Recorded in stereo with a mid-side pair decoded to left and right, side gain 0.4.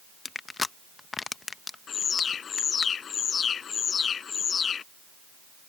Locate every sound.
0.2 s crushing: 30° left
1.9 s an alarm: 55° left